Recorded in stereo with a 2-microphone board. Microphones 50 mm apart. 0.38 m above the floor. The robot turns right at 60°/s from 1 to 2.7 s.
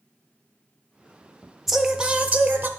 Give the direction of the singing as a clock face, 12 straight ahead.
6 o'clock.